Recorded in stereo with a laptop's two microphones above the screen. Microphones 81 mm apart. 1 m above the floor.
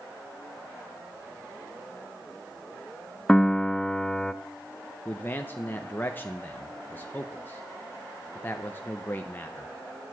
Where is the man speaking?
25° left (ahead or behind), 0.8 m.